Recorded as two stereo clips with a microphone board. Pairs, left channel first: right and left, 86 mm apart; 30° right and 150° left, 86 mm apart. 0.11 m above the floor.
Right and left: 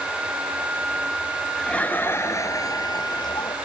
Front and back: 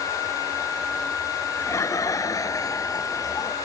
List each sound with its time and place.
1.6 s laughter: 15° right; by 3.5 s 75° right